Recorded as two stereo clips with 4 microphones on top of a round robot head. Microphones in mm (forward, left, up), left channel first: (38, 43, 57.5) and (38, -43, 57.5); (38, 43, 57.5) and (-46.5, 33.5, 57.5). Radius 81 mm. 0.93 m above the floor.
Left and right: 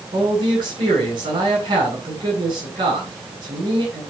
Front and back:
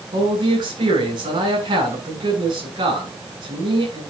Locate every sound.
0.1 s a man speaking: 130° right, 9.5 m